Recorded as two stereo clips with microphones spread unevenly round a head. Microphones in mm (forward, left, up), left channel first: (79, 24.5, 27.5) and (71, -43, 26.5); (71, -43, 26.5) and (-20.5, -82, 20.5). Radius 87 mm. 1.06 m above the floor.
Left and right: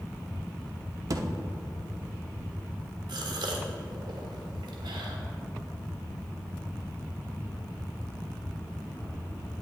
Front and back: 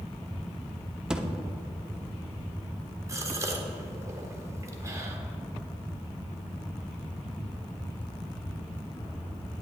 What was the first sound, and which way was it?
A thud, 75° right.